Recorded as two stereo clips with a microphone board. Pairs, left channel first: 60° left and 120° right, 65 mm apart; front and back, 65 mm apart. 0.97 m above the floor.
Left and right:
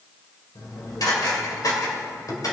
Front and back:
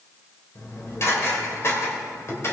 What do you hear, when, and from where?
0.6 s dishes clattering: 45° left, 2.5 m